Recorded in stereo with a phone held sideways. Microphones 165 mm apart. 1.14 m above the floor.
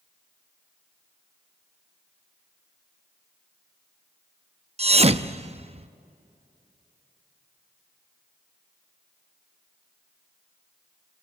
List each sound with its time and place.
4.8 s a thud: 40° right (ahead or behind), 0.6 m